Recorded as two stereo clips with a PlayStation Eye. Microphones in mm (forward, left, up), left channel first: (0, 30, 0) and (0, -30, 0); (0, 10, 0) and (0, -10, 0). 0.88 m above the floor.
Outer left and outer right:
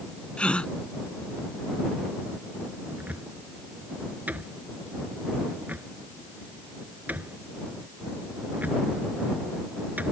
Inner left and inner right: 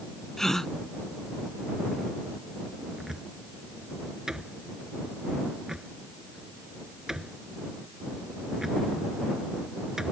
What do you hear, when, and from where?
0.4 s a gasp: 20° left (ahead or behind)
3.0 s a cupboard door: 30° right (ahead or behind)